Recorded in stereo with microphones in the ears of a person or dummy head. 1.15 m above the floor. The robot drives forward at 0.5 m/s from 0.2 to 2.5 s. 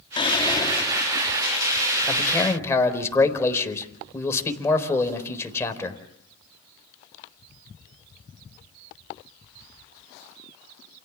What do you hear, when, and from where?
0.2 s whispering: 20° left (ahead or behind), 0.6 m; by 1.4 s 10° left (ahead or behind), 1.1 m
2.1 s a man speaking: 15° left (ahead or behind), 4 m